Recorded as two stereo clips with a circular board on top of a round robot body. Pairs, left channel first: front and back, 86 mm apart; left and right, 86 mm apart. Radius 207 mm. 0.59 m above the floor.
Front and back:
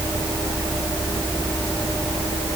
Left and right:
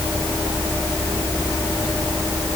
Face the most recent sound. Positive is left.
No sound to turn to.